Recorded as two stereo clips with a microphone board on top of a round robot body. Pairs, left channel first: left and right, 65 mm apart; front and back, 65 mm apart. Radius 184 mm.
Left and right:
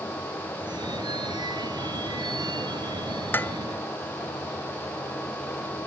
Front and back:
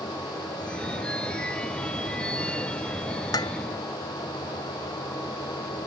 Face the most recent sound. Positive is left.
turn(degrees=25)